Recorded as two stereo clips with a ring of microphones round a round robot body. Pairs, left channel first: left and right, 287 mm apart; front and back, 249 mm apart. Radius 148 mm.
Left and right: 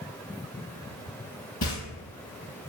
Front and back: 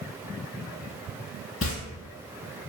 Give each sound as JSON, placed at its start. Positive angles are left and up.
{"t": 1.6, "sound": "footsteps", "azimuth_deg": 30, "distance_m": 0.6}